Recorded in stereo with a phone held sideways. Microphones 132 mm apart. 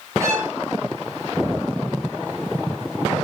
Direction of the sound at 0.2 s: 25° right (ahead or behind).